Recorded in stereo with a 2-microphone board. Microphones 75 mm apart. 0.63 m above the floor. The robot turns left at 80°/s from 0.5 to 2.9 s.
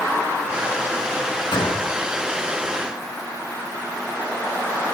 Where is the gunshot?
100° left, 7 m; by 1.9 s 65° left, 7 m.